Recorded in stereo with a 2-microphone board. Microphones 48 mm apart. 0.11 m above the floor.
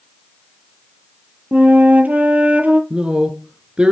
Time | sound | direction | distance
1.5 | a flute | 35° right (ahead or behind) | 1.1 m
2.9 | a man speaking | 20° right (ahead or behind) | 1.2 m